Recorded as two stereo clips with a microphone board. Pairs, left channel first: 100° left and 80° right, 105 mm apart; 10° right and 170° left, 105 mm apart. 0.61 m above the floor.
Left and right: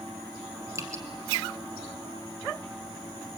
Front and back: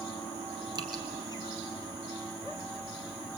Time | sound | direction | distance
0.8 | dripping | 140° right | 2.5 m